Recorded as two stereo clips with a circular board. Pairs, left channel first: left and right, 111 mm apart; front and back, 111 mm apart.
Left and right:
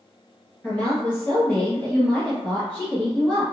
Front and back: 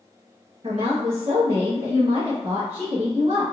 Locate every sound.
0.6 s a woman speaking: 160° left, 0.9 m